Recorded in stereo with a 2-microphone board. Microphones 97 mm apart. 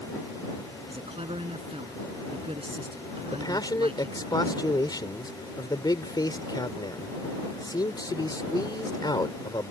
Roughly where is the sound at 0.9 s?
Right.